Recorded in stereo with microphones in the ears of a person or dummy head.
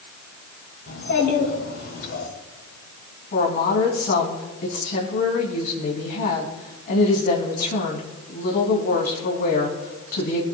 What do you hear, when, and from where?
0.9 s a child speaking: 70° left (ahead or behind), 3.5 m; by 2.3 s 75° left (ahead or behind), 4 m
3.3 s a woman speaking: 55° left (ahead or behind), 3 m